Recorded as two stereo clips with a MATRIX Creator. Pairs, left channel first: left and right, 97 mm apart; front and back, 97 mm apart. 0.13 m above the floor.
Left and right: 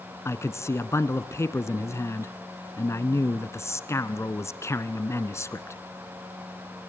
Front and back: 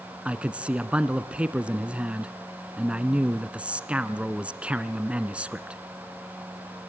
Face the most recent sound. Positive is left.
turn(degrees=115)